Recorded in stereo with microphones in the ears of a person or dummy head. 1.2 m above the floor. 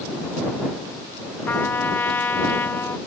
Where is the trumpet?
15° left (ahead or behind).